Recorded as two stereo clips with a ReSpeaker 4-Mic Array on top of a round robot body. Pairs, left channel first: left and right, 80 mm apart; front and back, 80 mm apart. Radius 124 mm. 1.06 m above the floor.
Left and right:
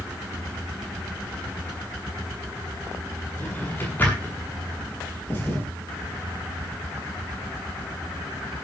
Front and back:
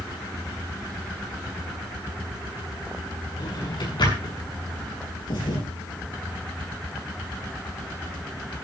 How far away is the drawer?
About 7.5 m.